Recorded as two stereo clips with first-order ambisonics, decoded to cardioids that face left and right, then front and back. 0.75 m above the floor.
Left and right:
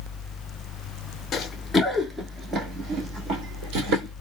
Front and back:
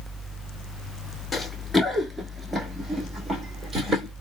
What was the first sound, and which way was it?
Running footsteps, 75° left.